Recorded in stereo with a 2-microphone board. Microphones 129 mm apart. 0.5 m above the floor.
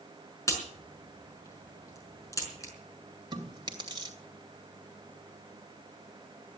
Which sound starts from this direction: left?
A crack, at 0.5 s.